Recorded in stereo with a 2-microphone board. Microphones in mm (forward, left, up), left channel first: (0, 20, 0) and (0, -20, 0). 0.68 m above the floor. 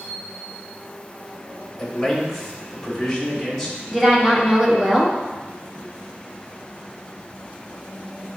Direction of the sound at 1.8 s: 10° left (ahead or behind).